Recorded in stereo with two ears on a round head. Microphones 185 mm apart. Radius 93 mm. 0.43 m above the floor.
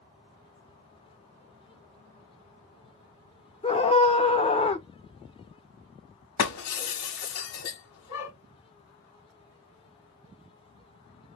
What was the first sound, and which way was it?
A scream, 25° left (ahead or behind).